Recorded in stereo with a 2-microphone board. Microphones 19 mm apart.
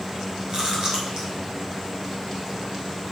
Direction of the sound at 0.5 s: 40° right (ahead or behind).